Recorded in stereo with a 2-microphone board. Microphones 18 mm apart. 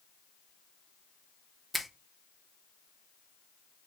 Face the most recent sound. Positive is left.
turn(degrees=0)  # may be behind; listen again after turning